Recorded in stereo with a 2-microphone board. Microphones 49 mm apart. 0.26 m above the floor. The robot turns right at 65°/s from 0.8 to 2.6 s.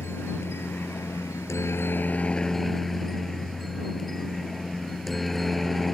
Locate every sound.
0.0 s a helicopter: 60° left; by 6.0 s 175° left